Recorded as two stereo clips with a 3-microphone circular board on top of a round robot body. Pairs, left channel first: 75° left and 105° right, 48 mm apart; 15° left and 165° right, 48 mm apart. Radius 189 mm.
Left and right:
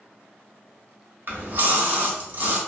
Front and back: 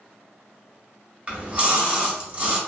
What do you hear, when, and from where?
1.3 s a splash: 110° right, 1.4 m